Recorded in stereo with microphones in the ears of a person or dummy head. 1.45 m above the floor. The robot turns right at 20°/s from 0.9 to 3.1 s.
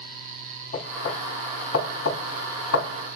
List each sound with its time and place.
0.7 s knocking: 45° left (ahead or behind), 3 m; by 3.0 s 90° left, 3 m